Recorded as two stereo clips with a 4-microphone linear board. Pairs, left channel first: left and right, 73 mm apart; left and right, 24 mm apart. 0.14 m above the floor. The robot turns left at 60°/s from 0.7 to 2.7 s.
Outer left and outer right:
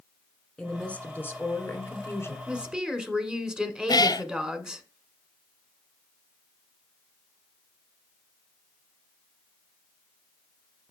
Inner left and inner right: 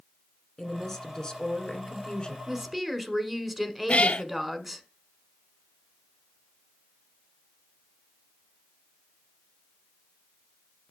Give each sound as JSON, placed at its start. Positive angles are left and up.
{"t": 0.6, "sound": "a woman speaking", "azimuth_deg": 160, "distance_m": 1.7}
{"t": 2.5, "sound": "a woman speaking", "side_deg": -15, "distance_m": 1.3}
{"t": 3.9, "sound": "a cat meowing", "side_deg": 70, "distance_m": 0.7}